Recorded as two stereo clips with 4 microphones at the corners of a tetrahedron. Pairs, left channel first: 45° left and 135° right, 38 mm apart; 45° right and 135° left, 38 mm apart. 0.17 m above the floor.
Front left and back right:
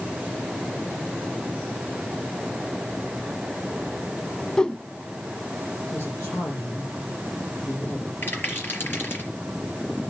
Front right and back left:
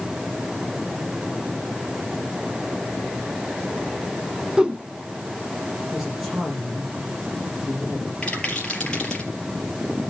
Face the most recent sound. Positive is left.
turn(degrees=25)